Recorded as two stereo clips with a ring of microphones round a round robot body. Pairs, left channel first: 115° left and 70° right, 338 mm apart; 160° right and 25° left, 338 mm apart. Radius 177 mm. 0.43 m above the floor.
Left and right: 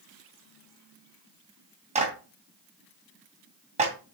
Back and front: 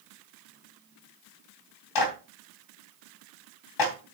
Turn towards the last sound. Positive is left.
turn(degrees=-140)